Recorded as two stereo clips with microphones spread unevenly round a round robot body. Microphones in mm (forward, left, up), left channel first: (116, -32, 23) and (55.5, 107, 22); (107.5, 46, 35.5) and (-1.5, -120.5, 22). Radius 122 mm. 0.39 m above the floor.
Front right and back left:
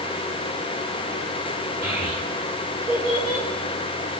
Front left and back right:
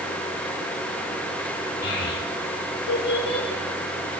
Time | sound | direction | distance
1.8 | a child speaking | 45° left | 5.5 m